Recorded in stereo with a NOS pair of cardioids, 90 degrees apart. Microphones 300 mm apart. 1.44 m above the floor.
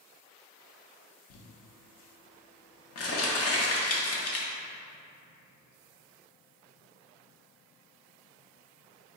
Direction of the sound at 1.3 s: 55° left.